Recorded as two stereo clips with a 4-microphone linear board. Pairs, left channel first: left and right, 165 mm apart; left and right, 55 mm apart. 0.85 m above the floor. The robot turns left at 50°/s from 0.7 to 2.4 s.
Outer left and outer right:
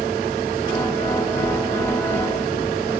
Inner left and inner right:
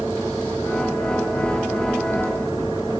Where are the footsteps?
40° right (ahead or behind), 1.2 m; by 2.7 s 45° right (ahead or behind), 1.6 m.